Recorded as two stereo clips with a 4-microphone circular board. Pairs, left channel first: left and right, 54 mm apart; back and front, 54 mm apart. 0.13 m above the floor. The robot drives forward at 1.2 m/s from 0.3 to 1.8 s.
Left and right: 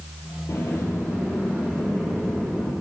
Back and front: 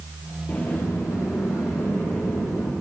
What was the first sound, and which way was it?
A sliding door, 115° left.